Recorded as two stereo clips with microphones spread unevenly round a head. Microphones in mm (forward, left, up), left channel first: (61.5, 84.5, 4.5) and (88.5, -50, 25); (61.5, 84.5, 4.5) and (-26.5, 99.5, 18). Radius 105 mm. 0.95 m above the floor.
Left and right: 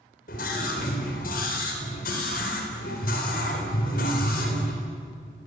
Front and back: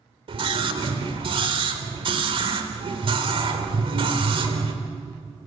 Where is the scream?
145° left, 4 m.